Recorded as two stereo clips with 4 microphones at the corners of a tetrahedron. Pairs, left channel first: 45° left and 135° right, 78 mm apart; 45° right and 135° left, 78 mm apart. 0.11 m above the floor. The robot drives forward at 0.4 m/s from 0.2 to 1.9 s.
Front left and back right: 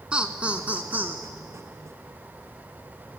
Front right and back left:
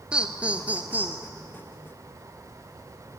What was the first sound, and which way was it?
Laughter, straight behind.